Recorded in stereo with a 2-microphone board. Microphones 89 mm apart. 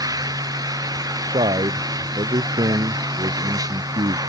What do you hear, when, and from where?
0.0 s an engine running: 40° right (ahead or behind)
1.3 s a man speaking: 80° right